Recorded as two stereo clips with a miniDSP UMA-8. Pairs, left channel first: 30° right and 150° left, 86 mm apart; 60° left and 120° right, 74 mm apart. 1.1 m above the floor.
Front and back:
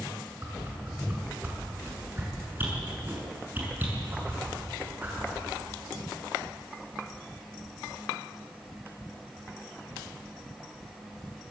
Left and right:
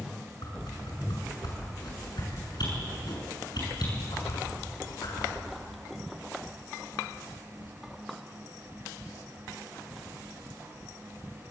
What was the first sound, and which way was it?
A whoosh, 85° left.